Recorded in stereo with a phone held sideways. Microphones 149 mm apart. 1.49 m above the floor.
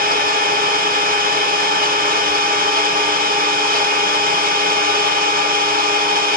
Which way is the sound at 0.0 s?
75° right (ahead or behind).